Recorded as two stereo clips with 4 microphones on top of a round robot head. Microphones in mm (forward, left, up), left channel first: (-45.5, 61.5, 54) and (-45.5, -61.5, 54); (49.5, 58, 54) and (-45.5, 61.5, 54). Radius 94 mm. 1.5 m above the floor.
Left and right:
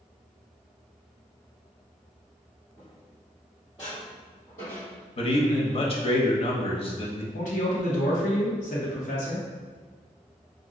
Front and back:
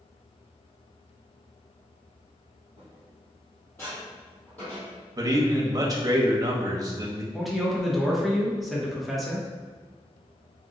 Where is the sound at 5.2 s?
130° left, 0.9 m.